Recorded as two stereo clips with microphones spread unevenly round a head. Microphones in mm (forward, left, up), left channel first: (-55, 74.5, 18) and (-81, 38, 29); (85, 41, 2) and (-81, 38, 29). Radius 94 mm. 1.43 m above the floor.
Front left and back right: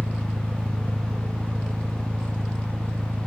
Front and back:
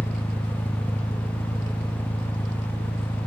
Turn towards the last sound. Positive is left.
turn(degrees=-85)